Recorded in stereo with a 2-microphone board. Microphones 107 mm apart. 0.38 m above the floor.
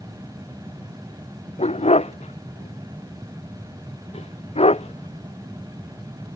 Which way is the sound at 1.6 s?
80° left.